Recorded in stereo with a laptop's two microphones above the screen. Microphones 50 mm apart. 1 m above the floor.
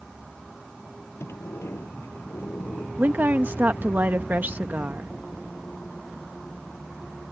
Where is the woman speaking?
40° right (ahead or behind).